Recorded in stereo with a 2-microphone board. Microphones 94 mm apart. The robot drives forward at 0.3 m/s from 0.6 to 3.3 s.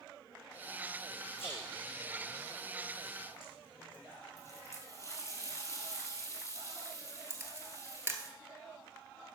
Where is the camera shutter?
25° right (ahead or behind), 1.3 m.